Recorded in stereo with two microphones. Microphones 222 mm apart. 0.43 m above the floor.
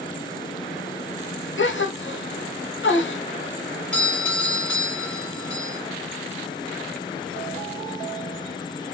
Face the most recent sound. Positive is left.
turn(degrees=5)  # may be behind; listen again after turning